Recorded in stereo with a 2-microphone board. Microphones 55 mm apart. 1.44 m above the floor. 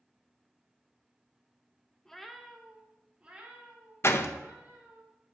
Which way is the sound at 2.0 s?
5° left (ahead or behind).